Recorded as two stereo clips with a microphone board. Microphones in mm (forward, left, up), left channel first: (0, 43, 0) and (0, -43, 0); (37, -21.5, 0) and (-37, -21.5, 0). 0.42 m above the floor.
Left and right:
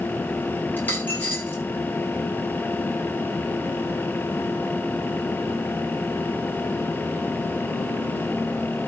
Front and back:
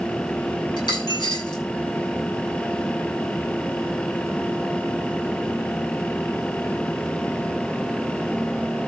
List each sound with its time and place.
0.8 s a dropped coin: 25° left, 8.5 m